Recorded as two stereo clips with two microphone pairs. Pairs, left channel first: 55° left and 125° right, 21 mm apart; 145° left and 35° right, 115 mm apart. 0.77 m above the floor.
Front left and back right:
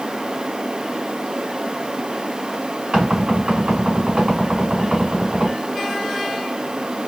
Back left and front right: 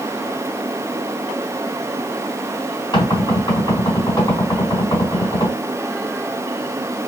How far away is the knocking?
About 3 m.